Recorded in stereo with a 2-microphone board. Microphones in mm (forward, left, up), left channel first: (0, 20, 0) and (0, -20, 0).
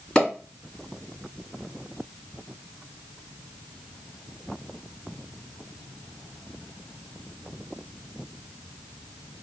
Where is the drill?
No drill in this recording.